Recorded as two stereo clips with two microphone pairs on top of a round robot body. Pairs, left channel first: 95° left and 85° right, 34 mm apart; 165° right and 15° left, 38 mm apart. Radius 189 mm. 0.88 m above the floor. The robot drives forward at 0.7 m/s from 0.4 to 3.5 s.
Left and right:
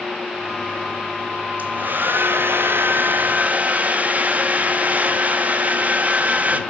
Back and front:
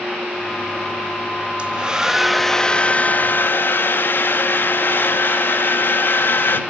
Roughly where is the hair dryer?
Ahead right.